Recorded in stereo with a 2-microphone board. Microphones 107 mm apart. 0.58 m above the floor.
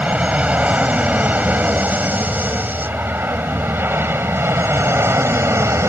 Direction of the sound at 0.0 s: 10° right (ahead or behind).